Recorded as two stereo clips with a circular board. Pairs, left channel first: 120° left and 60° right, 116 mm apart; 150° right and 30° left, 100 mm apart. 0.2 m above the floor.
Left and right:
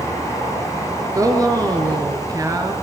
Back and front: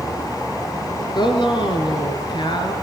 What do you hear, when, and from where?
1.1 s a woman speaking: 115° right, 3.5 m